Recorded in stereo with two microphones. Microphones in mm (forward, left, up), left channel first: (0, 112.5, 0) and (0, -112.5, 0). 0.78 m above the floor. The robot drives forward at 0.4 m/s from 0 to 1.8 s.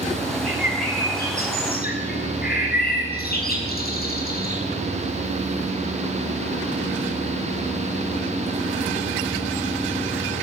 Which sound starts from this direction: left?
A bird, at 0.4 s.